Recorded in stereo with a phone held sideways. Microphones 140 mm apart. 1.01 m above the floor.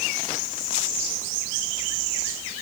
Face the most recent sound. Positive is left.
No sound to turn to.